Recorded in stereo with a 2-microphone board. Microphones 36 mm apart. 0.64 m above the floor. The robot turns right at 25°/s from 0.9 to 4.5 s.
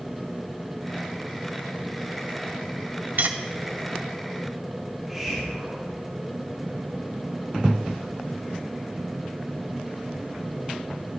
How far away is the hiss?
About 4 m.